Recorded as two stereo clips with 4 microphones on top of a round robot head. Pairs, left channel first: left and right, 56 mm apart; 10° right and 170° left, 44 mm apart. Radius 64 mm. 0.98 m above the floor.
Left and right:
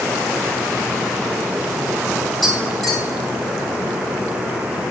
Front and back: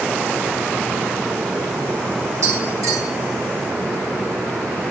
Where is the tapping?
170° left, 6 m.